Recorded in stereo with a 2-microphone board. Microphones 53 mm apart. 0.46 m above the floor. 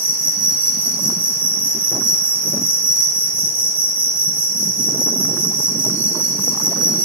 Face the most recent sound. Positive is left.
turn(degrees=-30)  # may be behind; listen again after turning